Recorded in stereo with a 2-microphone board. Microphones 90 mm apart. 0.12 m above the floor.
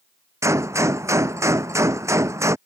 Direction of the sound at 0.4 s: 35° right (ahead or behind).